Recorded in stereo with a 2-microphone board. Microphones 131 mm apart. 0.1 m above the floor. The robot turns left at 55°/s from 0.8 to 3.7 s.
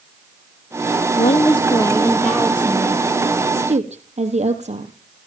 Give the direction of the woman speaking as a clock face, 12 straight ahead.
10 o'clock.